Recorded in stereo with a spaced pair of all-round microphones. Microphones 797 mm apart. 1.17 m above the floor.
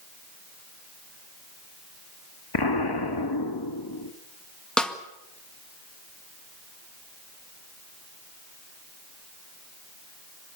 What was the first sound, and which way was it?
An explosion, 30° left (ahead or behind).